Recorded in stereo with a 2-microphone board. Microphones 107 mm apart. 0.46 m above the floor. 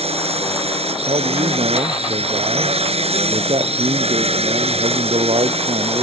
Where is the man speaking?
70° right (ahead or behind).